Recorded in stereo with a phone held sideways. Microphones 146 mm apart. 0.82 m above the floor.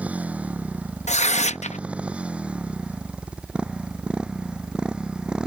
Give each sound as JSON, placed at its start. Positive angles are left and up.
{"t": 0.0, "sound": "a motorcycle", "side_deg": -10}
{"t": 1.1, "sound": "tearing paper", "side_deg": 50}